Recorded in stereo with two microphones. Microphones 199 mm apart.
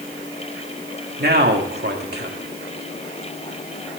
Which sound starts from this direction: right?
A man speaking, at 1.2 s.